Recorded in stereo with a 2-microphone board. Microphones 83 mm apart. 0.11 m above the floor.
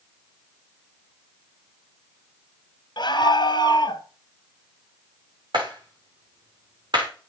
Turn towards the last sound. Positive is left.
turn(degrees=-65)  # may be behind; listen again after turning